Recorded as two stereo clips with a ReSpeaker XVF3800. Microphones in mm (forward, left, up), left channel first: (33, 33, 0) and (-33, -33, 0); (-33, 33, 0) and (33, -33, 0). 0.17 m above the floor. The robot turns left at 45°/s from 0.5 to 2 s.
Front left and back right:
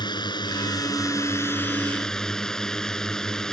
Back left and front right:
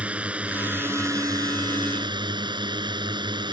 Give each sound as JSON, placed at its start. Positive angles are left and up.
{"t": 0.0, "sound": "a drone", "azimuth_deg": 30}